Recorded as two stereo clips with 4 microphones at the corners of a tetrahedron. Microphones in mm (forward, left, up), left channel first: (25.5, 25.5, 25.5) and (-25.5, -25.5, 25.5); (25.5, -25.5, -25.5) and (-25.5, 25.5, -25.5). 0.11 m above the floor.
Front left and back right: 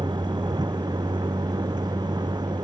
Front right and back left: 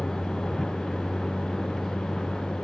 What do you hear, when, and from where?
0.0 s a vehicle: 130° right